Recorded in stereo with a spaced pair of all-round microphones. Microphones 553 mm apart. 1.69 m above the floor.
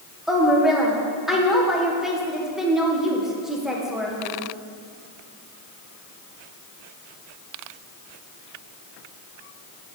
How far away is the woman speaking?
About 1.2 m.